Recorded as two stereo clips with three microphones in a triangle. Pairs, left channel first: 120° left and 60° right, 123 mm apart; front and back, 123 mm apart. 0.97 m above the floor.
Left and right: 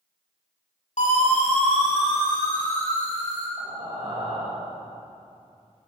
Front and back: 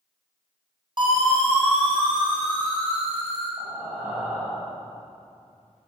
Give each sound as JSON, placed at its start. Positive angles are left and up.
{"t": 1.0, "sound": "a siren", "azimuth_deg": 130, "distance_m": 5.5}
{"t": 3.6, "sound": "breathing", "azimuth_deg": -105, "distance_m": 5.0}